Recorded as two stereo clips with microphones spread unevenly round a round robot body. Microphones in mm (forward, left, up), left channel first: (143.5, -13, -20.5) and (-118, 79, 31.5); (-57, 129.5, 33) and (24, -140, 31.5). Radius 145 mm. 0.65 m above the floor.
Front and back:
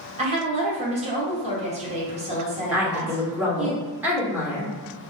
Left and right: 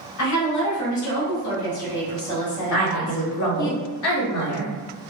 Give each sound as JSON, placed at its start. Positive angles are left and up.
{"t": 0.2, "sound": "a woman speaking", "azimuth_deg": 90, "distance_m": 2.0}
{"t": 2.7, "sound": "a woman speaking", "azimuth_deg": 75, "distance_m": 1.5}